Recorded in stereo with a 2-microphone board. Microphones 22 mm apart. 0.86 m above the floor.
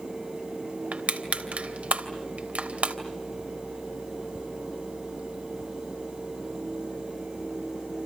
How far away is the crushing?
About 2.5 m.